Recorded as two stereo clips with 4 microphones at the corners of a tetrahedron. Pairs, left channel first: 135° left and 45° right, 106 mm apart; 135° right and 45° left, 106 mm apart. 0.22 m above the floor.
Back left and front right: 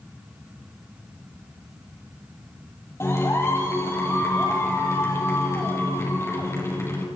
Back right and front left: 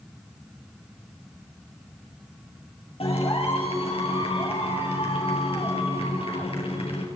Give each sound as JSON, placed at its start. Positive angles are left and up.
{"t": 3.0, "sound": "a clap", "azimuth_deg": -160, "distance_m": 4.5}